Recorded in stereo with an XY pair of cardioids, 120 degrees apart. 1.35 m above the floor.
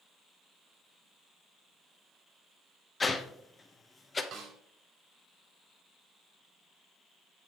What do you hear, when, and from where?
3.0 s a whoosh: 25° left, 1.1 m
4.3 s a snare drum: 70° right, 3 m